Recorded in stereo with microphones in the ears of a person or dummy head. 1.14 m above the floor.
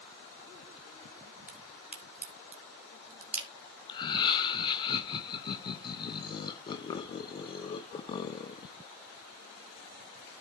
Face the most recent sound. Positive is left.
turn(degrees=30)  # may be behind; listen again after turning